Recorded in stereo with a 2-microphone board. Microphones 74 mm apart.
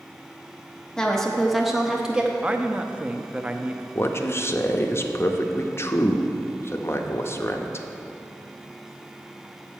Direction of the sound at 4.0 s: 40° left (ahead or behind).